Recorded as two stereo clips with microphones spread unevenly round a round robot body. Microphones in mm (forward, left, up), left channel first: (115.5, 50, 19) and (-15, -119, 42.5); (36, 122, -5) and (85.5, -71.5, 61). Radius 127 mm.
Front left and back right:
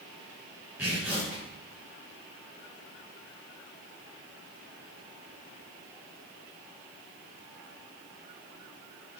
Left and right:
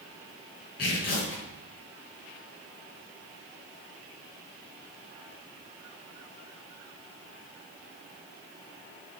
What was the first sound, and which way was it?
Tearing paper, 145° left.